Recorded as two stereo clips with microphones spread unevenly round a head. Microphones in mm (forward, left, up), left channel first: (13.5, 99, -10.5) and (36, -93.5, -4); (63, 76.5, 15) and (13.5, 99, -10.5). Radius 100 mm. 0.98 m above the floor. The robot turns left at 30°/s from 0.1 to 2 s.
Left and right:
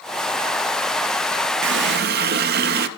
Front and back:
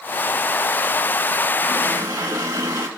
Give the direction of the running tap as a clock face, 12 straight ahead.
4 o'clock.